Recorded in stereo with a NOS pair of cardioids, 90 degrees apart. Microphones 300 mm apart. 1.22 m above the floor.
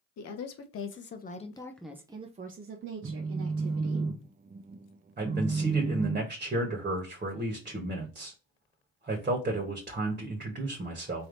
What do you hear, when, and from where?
0.2 s a woman speaking: 65° left, 1.0 m; by 4.0 s 55° right, 1.4 m
3.0 s a phone buzzing: 30° right, 0.8 m
5.2 s a man speaking: 30° right, 1.4 m